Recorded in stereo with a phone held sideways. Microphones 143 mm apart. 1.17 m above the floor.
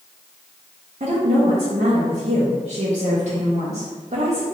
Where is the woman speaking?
55° right (ahead or behind), 0.8 m.